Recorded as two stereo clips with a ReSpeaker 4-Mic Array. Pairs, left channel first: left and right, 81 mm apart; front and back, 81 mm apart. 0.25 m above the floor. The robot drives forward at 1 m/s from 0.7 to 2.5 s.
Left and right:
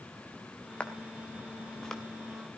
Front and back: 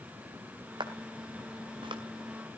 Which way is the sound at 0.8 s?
165° left.